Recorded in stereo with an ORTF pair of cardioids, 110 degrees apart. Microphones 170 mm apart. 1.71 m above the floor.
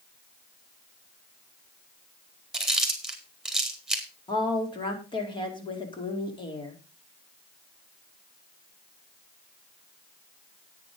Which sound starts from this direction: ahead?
Chewing, at 2.5 s.